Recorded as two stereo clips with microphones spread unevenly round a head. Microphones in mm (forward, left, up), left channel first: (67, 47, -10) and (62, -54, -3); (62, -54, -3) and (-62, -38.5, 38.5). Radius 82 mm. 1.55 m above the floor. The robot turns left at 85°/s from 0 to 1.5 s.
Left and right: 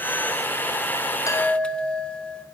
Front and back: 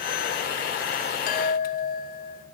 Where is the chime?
25° left, 0.7 m; by 2.5 s 5° left, 0.7 m.